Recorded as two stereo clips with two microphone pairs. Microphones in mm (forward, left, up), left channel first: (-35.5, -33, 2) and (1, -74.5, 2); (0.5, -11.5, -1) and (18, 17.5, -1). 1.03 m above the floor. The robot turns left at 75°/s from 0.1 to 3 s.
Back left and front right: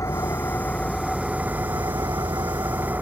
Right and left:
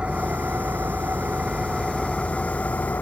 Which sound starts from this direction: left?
An engine running, at 0.0 s.